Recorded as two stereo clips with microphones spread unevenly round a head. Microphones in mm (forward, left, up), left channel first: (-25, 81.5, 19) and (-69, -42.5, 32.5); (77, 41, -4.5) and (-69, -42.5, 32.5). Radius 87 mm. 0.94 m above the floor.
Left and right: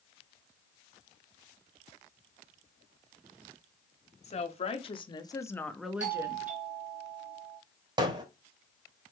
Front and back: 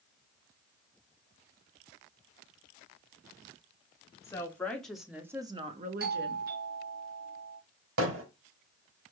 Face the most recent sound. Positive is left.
turn(degrees=-165)